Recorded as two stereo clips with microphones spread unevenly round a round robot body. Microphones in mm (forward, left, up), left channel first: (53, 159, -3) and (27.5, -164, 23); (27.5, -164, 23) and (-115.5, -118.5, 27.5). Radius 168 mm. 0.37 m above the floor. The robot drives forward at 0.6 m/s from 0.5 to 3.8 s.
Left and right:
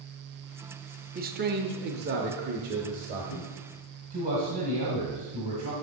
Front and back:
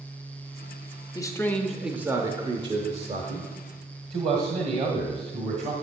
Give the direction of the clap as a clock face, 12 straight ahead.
No clap in this recording.